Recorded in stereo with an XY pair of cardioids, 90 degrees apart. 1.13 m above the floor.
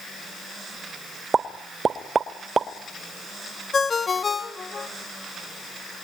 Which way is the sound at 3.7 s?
40° left.